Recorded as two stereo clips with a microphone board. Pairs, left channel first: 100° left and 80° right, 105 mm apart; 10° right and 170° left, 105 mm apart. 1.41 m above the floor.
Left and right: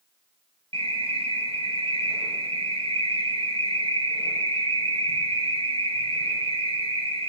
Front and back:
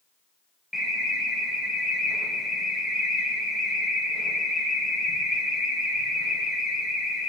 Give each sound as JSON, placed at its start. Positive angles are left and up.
{"t": 0.7, "sound": "an alarm", "azimuth_deg": -105, "distance_m": 1.3}